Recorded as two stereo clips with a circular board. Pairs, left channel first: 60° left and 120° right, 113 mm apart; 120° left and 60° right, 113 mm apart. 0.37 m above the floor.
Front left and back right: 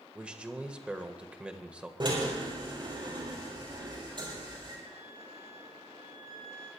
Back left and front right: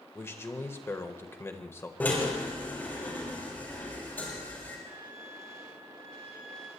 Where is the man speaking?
165° left, 1.4 m.